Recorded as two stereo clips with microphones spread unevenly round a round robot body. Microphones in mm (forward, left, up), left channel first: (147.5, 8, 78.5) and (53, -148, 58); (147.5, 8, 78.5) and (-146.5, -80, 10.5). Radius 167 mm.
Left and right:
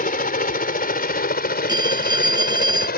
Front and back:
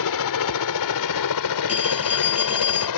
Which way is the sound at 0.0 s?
30° left.